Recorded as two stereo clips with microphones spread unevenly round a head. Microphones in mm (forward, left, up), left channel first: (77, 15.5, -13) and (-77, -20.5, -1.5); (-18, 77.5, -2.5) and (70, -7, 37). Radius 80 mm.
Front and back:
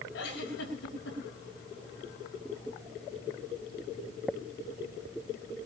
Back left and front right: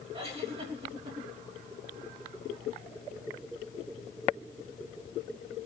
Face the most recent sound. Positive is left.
turn(degrees=-10)